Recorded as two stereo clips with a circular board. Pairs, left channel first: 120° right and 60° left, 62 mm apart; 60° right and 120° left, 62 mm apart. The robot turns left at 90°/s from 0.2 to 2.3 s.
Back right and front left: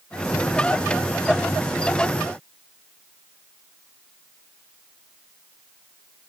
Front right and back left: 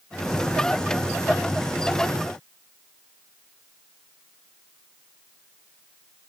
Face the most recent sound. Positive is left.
No sound to turn to.